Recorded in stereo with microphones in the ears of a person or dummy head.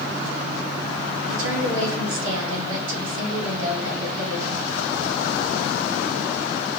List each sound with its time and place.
1.3 s a woman speaking: 80° right, 1.8 m